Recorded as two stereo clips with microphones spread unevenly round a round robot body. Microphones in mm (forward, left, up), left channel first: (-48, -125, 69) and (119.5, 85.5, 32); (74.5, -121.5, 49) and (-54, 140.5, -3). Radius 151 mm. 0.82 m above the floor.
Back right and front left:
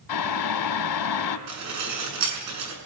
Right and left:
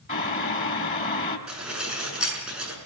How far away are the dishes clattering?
About 6.5 m.